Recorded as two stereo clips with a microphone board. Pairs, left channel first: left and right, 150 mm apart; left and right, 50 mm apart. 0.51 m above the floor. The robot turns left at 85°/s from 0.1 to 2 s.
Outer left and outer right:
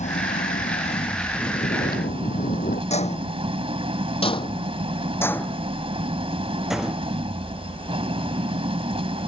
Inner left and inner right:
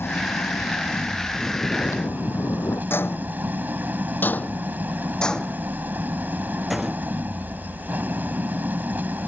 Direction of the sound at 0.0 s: 120° left.